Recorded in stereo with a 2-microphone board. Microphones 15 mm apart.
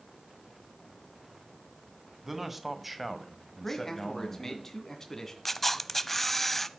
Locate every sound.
2.2 s a man speaking: 20° right (ahead or behind), 2.0 m; by 4.6 s 25° left (ahead or behind), 2 m
3.6 s a man speaking: 25° left (ahead or behind), 2.5 m
5.5 s a camera shutter: 15° left (ahead or behind), 0.6 m